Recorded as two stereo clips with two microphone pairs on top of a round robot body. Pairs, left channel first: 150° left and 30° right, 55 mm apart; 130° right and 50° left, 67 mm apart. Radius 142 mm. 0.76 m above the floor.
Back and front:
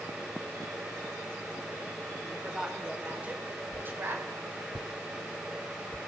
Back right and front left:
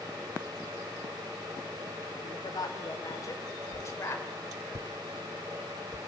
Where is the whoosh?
95° right, 0.5 m.